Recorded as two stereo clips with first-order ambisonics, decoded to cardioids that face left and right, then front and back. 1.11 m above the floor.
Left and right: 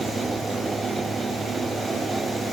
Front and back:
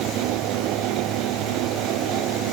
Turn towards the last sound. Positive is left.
No sound to turn to.